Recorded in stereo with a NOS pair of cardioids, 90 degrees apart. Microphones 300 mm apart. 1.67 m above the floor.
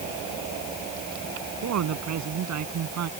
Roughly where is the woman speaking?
Ahead right.